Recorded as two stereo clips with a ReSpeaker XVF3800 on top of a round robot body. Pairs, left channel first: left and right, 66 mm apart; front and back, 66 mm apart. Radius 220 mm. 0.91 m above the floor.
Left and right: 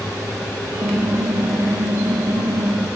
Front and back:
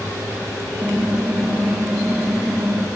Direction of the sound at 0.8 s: 115° right.